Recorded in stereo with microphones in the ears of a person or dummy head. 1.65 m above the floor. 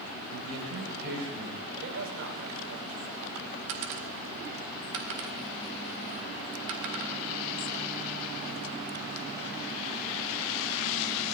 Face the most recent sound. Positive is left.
turn(degrees=-60)  # may be behind; listen again after turning